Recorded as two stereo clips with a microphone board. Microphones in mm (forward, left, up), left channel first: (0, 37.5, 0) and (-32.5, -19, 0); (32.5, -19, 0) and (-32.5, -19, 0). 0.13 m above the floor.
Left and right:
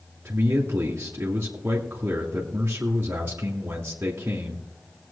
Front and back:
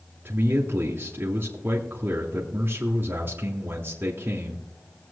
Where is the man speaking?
155° right, 1.9 m.